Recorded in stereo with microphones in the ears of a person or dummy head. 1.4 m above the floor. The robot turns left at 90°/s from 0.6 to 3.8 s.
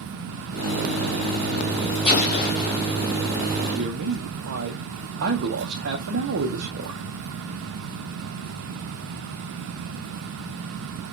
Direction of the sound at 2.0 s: 150° left.